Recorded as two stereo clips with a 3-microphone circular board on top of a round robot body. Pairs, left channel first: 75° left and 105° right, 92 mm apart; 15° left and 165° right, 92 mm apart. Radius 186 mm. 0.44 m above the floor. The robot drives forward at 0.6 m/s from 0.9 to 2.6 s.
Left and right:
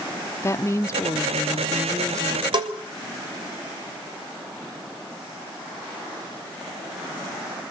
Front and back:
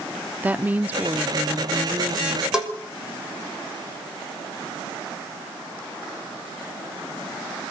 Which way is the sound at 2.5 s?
85° right.